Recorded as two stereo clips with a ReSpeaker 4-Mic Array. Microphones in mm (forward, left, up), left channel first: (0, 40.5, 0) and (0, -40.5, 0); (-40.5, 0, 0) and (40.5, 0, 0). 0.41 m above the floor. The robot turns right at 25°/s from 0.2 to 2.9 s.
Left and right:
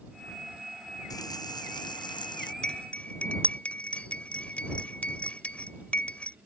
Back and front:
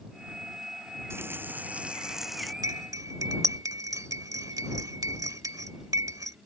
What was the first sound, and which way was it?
A running tap, 55° left.